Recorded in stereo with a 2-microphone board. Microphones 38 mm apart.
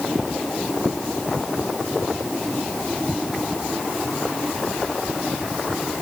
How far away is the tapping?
No tapping in this recording.